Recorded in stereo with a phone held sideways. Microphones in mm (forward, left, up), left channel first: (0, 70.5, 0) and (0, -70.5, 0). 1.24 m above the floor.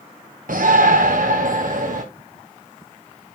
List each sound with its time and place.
0.5 s a shout: 75° right (ahead or behind), 0.9 m; by 2.0 s 65° right (ahead or behind), 1.7 m